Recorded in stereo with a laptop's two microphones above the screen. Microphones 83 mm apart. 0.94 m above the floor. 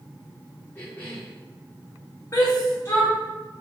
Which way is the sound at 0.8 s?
25° left (ahead or behind).